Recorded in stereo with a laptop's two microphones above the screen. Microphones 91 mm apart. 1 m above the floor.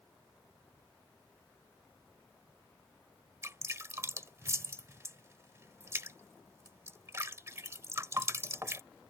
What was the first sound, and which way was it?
Dripping, 30° right (ahead or behind).